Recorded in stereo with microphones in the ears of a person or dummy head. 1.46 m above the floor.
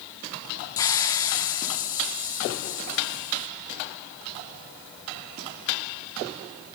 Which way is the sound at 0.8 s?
20° left (ahead or behind).